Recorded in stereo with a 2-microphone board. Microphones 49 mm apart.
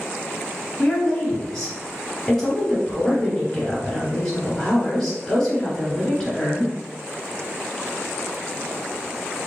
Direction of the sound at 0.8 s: 10° left (ahead or behind).